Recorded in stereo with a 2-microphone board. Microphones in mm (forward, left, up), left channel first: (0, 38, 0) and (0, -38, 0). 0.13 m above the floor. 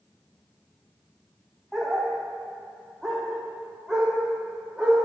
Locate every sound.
1.7 s a dog barking: centre (ahead or behind), 3.5 m; by 5.0 s 5° right (ahead or behind), 5.5 m